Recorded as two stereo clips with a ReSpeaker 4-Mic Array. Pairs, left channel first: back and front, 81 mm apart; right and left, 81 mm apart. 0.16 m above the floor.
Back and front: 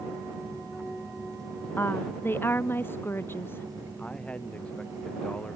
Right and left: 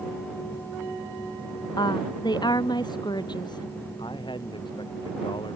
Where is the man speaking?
105° right.